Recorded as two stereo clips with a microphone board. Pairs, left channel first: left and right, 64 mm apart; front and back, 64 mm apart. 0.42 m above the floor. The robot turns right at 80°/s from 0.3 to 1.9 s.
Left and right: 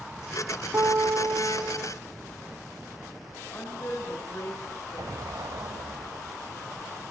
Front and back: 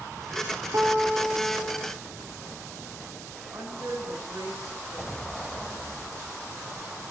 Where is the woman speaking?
145° left, 5.5 m.